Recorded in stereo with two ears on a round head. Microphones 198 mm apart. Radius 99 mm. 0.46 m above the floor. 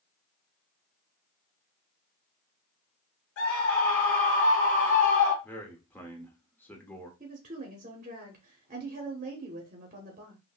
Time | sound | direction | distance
3.4 | a scream | 70° left (ahead or behind) | 3 m
5.4 | a man speaking | 10° left (ahead or behind) | 0.9 m
7.2 | a woman speaking | 35° right (ahead or behind) | 0.8 m